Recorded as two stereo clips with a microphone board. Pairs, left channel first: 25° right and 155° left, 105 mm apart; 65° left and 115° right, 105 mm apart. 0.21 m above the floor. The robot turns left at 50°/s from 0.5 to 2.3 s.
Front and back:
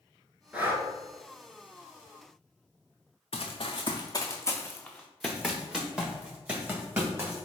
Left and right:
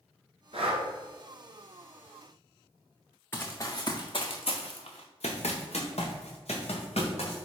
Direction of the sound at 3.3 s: 5° right.